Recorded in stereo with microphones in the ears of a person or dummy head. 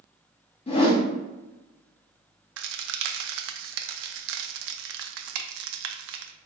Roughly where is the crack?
Right.